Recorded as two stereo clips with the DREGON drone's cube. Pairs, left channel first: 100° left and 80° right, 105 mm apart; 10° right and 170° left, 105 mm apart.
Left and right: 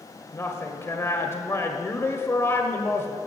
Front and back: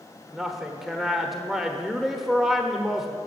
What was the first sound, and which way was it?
A woman speaking, 85° left.